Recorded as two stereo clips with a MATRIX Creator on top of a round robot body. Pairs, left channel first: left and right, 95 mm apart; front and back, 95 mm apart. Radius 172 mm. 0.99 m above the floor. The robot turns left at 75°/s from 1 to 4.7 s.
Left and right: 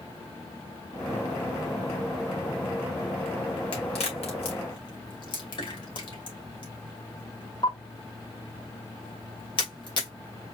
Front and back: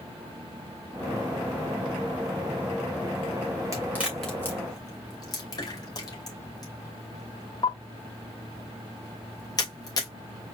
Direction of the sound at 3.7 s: 125° left.